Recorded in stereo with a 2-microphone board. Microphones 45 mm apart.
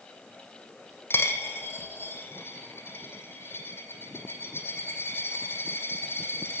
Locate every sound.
1.1 s a dropped coin: 55° left (ahead or behind), 1.8 m